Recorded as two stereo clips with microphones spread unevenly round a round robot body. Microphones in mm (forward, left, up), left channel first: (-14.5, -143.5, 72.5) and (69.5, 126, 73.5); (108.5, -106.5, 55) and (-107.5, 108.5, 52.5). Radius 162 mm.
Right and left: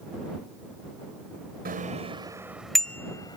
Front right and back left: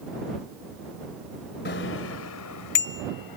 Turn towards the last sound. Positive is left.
turn(degrees=-30)